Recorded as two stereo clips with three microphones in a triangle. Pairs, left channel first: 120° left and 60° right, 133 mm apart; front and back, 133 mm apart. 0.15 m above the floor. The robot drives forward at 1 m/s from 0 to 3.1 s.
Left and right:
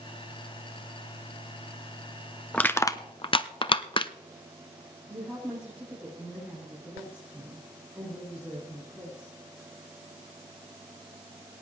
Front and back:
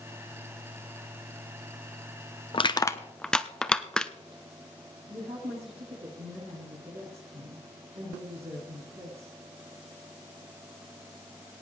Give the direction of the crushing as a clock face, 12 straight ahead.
11 o'clock.